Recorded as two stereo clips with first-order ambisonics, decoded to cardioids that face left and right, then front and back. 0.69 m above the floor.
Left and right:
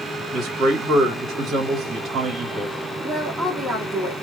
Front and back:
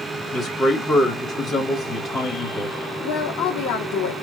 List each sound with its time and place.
0.3 s a man speaking: 50° right, 1.5 m
3.0 s a woman speaking: 5° right, 1.7 m